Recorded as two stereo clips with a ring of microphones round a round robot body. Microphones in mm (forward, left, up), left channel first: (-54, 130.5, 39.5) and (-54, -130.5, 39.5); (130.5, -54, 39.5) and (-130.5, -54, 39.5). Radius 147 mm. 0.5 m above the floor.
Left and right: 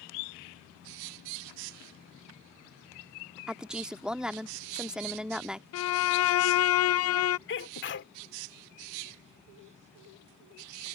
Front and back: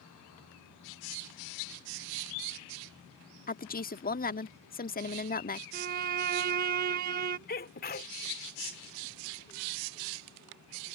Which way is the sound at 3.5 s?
5° right.